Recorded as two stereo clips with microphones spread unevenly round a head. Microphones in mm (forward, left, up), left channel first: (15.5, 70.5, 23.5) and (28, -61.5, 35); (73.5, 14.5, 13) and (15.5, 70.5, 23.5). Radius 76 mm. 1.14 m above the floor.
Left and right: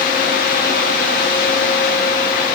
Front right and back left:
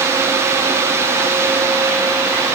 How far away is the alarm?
No alarm in this recording.